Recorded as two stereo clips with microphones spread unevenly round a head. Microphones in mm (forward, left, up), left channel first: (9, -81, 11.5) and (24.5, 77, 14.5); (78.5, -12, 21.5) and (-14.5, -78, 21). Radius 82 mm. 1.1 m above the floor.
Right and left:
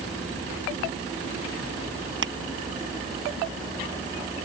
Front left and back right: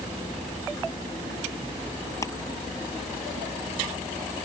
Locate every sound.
2.2 s crushing: 110° left